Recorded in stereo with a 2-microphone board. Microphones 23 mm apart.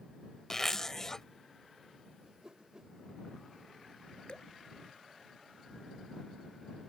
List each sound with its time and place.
0.5 s a zipper: 20° left (ahead or behind)
2.2 s a whoosh: 35° right (ahead or behind)
4.3 s dripping: 35° left (ahead or behind)